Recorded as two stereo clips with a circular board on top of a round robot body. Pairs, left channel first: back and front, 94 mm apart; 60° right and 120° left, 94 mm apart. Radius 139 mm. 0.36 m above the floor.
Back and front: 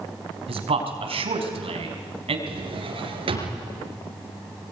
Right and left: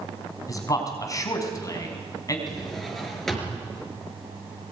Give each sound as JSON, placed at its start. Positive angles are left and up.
{"t": 0.5, "sound": "a man speaking", "azimuth_deg": -5, "distance_m": 5.0}
{"t": 2.5, "sound": "a drawer", "azimuth_deg": 25, "distance_m": 4.5}